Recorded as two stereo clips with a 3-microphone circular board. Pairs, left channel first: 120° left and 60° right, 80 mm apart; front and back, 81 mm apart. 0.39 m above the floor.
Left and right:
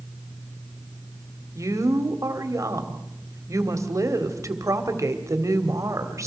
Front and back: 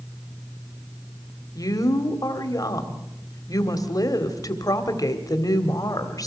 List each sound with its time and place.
1.6 s a woman speaking: 25° right, 1.8 m